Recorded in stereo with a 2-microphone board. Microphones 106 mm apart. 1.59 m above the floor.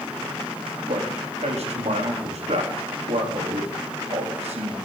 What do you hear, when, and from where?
0.9 s a man speaking: 80° right, 4 m